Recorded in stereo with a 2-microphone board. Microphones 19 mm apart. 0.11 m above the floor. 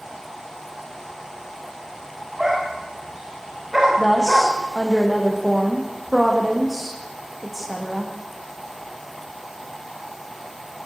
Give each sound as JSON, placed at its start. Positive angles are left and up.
{"t": 2.4, "sound": "a dog barking", "side_deg": -15, "distance_m": 8.5}
{"t": 4.0, "sound": "a woman speaking", "side_deg": -10, "distance_m": 6.0}